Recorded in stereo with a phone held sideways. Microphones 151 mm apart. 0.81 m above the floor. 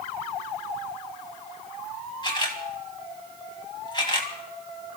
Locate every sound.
2.2 s a camera shutter: 30° left (ahead or behind), 2.5 m